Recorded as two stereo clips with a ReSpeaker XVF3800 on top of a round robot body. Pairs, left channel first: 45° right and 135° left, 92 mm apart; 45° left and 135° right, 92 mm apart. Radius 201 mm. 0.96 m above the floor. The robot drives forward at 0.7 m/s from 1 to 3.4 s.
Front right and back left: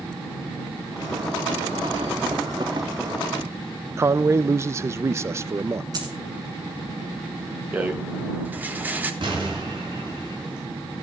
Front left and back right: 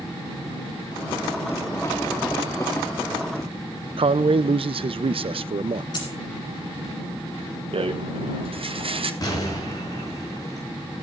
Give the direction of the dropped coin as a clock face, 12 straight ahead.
9 o'clock.